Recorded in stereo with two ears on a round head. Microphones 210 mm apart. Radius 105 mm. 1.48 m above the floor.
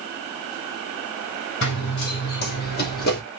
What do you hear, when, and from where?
1.6 s running footsteps: 50° left (ahead or behind), 2.5 m; by 3.2 s 40° left (ahead or behind), 3 m